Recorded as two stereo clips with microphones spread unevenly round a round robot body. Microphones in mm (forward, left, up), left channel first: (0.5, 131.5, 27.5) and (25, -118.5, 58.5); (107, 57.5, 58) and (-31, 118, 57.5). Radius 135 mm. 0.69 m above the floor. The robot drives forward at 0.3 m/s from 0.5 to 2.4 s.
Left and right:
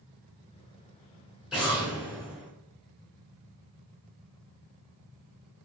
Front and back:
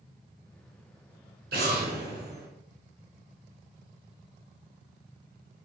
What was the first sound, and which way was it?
An explosion, 175° right.